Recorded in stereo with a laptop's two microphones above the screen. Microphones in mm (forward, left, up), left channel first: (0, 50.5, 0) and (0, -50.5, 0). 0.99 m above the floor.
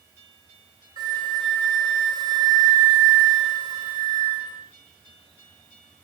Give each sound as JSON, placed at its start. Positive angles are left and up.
{"t": 1.0, "sound": "a flute", "side_deg": -45, "distance_m": 4.0}